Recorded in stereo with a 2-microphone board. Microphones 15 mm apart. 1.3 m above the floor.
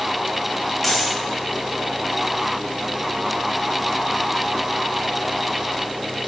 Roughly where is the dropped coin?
Centre.